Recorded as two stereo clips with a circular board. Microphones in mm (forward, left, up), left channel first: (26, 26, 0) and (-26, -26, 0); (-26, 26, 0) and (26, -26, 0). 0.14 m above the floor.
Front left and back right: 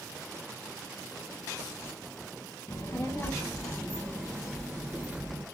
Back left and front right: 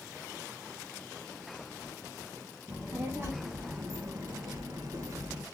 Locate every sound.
2.7 s a child speaking: 10° left, 2 m; by 5.5 s 75° right, 1.8 m